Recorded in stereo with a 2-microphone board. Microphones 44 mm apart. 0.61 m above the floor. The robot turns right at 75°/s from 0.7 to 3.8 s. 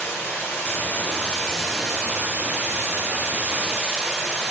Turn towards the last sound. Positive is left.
turn(degrees=-20)